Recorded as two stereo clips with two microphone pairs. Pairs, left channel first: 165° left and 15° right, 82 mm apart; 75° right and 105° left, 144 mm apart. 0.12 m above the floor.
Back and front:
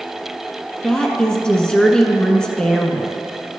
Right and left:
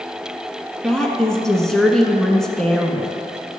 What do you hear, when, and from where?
0.8 s a woman speaking: 150° right, 1.0 m